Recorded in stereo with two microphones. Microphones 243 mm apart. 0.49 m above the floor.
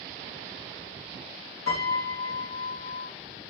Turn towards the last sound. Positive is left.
turn(degrees=65)  # may be behind; listen again after turning